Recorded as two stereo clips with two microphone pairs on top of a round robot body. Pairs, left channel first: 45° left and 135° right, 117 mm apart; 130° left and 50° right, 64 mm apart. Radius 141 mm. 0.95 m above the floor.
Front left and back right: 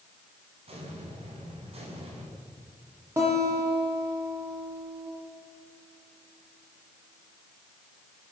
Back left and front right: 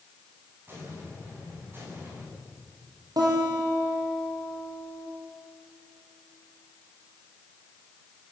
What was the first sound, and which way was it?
An explosion, 105° right.